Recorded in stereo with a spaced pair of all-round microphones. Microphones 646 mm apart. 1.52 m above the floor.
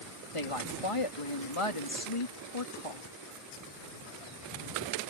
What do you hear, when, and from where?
0.3 s a woman speaking: 55° left (ahead or behind)